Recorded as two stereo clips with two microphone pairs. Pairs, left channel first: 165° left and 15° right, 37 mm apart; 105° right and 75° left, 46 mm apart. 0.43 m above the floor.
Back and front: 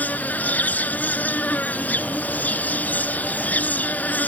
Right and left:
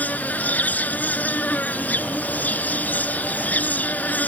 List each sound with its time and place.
0.0 s an insect: 155° right